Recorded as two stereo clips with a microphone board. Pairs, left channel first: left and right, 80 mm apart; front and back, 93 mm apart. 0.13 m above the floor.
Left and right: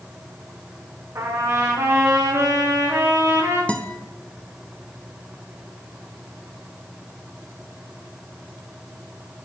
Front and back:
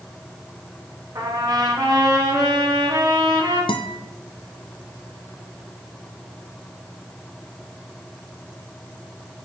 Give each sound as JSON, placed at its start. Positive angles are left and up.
{"t": 1.1, "sound": "a trumpet", "azimuth_deg": -135, "distance_m": 3.0}
{"t": 3.7, "sound": "a guitar", "azimuth_deg": 15, "distance_m": 0.7}